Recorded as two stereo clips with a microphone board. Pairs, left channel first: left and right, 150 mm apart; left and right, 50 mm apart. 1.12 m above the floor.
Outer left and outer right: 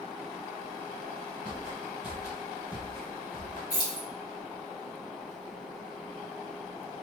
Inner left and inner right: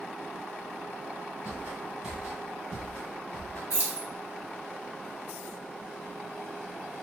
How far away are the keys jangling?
About 0.9 m.